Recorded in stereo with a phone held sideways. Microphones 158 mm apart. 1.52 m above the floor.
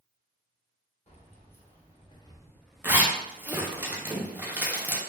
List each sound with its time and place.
1.1 s keys jangling: 45° left (ahead or behind), 0.9 m; by 3.8 s 30° right (ahead or behind), 0.8 m
2.8 s a zipper: 10° right (ahead or behind), 0.5 m